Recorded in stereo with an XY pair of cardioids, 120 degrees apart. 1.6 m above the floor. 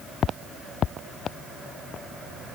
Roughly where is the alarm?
I don't hear an alarm.